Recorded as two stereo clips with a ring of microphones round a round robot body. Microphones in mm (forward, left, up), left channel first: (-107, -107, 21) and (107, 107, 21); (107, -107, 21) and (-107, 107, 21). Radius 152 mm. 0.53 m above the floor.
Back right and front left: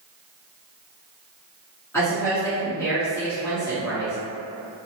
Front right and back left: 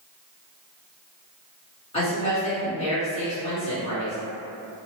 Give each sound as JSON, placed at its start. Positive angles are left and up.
{"t": 1.9, "sound": "a woman speaking", "azimuth_deg": -70, "distance_m": 1.1}